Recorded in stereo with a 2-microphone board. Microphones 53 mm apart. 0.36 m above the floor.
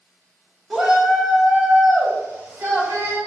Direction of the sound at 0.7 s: 10° right (ahead or behind).